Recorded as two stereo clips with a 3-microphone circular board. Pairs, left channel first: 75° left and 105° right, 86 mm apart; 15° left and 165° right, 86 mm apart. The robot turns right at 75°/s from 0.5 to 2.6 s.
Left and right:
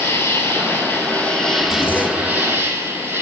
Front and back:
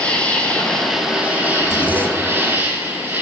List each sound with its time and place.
0.0 s an insect: 75° left, 1.5 m; by 3.2 s 125° right, 1.5 m
1.6 s a zipper: 110° left, 0.8 m; by 2.5 s 175° left, 0.8 m